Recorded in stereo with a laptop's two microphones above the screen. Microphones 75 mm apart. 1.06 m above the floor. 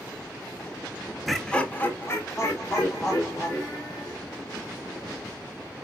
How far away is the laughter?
About 0.6 m.